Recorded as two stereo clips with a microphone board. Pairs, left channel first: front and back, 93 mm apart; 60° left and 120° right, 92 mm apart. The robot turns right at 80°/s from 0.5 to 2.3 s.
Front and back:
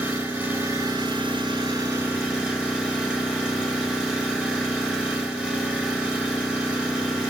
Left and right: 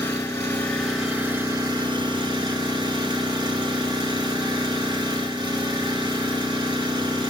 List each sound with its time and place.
0.0 s an engine running: 115° left, 1.0 m; by 7.3 s 105° right, 1.0 m